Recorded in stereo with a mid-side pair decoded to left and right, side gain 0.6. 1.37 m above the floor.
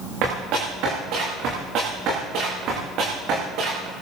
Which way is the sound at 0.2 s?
70° right.